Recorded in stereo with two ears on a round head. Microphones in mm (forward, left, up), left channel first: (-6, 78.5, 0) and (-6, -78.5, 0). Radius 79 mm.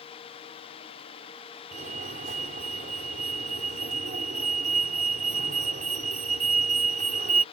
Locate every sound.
1.7 s a fire alarm: 45° right (ahead or behind)